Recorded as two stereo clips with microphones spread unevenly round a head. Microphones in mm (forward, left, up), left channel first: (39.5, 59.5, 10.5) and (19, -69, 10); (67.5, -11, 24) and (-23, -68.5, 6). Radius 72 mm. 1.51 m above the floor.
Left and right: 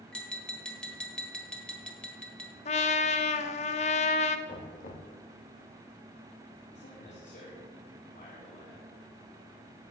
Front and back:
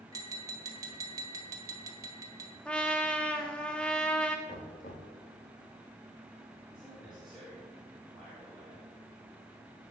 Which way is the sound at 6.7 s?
125° left.